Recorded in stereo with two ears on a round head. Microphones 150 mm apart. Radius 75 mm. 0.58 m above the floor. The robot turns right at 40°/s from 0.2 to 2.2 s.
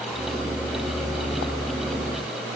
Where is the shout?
I don't hear a shout.